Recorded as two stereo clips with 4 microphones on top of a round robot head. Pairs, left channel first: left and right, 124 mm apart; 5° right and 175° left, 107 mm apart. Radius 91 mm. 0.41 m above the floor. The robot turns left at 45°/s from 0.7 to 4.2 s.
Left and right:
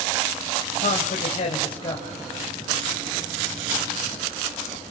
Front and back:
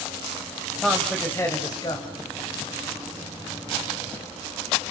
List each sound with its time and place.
0.8 s a man speaking: 85° left, 3 m; by 2.1 s 25° left, 3 m